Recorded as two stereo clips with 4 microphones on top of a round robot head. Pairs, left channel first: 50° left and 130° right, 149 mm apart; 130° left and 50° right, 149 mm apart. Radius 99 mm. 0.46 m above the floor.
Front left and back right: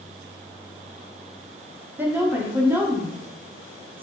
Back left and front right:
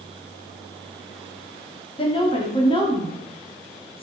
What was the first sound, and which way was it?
A woman speaking, 160° left.